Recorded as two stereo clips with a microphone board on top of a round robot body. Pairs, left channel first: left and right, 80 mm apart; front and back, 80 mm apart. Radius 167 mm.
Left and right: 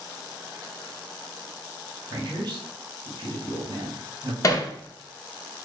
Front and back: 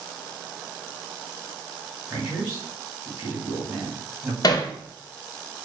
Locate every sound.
2.1 s a man speaking: 130° right, 1.6 m
4.4 s hammering: 40° left, 0.6 m